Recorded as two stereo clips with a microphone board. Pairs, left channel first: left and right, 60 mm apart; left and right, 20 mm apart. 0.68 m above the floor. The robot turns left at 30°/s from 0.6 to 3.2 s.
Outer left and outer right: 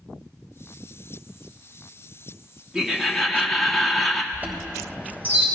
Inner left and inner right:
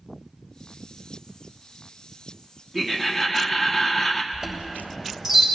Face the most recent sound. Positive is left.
turn(degrees=-30)  # may be behind; listen again after turning